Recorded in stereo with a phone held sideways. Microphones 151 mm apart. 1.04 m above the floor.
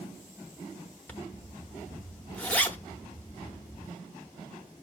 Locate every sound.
1.1 s a zipper: 10° left (ahead or behind), 0.7 m